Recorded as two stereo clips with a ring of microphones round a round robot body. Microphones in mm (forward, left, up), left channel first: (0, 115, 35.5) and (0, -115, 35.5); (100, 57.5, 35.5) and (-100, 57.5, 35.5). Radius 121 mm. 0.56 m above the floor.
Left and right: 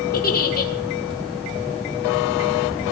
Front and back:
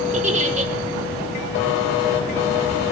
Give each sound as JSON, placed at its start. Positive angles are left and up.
{"t": 0.1, "sound": "a giggle", "azimuth_deg": 135, "distance_m": 2.0}